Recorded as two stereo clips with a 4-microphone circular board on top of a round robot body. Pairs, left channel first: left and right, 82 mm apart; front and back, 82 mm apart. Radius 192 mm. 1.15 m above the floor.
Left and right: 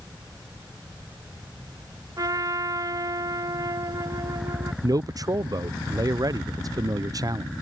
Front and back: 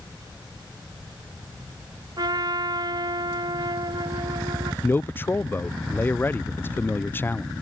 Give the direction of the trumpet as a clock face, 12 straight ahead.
5 o'clock.